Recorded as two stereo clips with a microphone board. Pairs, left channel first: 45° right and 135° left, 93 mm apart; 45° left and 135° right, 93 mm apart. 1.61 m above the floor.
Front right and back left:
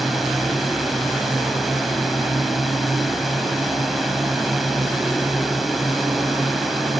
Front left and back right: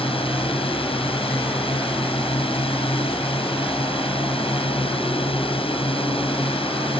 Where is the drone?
45° left.